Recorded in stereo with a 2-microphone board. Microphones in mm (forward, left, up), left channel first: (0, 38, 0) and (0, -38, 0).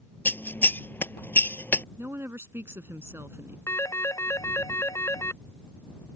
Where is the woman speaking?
35° right (ahead or behind).